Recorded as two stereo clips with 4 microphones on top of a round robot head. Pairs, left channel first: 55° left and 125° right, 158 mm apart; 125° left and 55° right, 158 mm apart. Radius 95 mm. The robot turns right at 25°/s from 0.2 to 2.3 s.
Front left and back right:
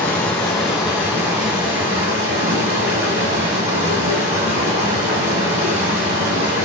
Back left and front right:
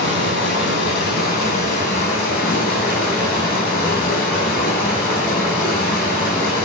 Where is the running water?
135° left, 5 m; by 6.7 s 175° right, 5 m.